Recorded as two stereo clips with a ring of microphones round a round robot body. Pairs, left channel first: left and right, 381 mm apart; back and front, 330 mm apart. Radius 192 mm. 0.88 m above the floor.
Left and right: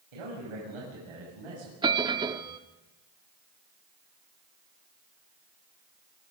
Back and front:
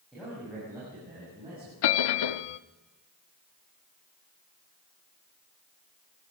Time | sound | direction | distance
0.1 | a man speaking | 90° right | 7 m
1.8 | a bell | 170° right | 0.6 m